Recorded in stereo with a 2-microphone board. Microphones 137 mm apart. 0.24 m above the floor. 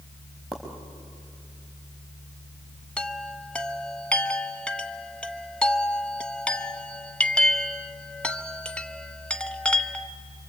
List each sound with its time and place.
0.5 s a pop: centre (ahead or behind), 4.5 m
3.0 s a chime: 5° left (ahead or behind), 0.8 m